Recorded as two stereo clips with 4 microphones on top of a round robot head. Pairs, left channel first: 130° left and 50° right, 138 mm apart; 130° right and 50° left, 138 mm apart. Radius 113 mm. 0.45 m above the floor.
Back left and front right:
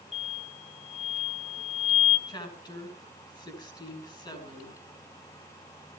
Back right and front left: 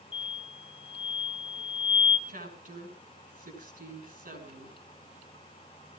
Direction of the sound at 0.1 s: 175° left.